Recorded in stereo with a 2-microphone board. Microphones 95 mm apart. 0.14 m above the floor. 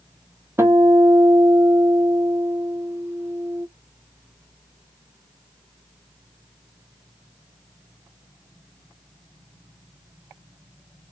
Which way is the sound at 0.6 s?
25° right (ahead or behind).